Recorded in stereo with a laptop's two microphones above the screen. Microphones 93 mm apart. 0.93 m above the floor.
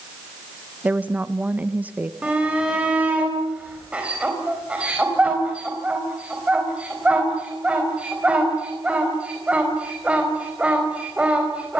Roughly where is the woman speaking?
Centre.